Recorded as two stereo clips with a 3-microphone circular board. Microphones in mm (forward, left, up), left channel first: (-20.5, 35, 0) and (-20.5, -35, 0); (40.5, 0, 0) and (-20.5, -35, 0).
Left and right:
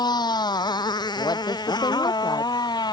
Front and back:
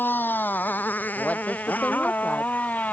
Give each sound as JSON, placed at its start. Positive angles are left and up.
{"t": 0.0, "sound": "a motorcycle", "azimuth_deg": 90}
{"t": 1.2, "sound": "a woman speaking", "azimuth_deg": 100}